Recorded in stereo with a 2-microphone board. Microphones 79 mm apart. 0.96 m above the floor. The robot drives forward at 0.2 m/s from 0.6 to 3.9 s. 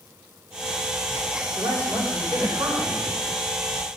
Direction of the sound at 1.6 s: 60° right (ahead or behind).